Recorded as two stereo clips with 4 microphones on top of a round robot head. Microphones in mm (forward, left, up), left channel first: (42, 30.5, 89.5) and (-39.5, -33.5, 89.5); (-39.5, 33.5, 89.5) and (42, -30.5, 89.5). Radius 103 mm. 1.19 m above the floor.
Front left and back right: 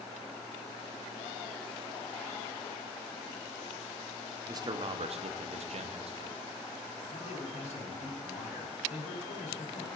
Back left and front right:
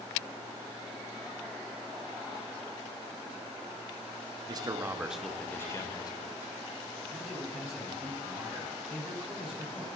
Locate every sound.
4.5 s a man speaking: 85° right, 0.7 m; by 6.4 s 170° right, 1.2 m
7.1 s a man speaking: 45° left, 3 m